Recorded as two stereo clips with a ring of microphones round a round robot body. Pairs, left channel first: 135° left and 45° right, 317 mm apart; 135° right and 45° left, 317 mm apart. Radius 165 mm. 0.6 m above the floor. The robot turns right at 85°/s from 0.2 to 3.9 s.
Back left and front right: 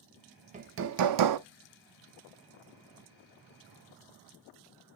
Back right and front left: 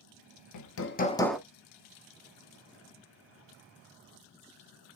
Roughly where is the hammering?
Behind right.